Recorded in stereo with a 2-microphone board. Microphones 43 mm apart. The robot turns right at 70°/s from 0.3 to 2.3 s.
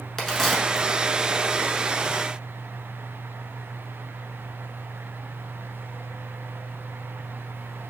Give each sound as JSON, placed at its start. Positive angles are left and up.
{"t": 0.2, "sound": "a crack", "side_deg": 10, "distance_m": 1.0}